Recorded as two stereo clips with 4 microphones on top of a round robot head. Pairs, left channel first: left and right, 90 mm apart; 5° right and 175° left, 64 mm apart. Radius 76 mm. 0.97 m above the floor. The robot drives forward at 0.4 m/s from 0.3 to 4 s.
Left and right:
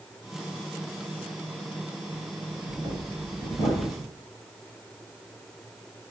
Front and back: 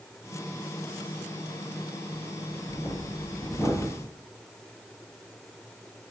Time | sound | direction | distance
2.1 | breathing | 45° right | 1.8 m